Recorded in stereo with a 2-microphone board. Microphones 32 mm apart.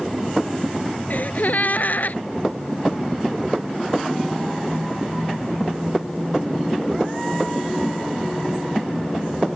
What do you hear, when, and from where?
1.1 s a gasp: 65° left (ahead or behind)